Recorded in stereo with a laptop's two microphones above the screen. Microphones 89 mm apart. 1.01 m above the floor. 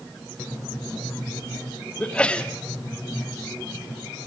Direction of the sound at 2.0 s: 10° left (ahead or behind).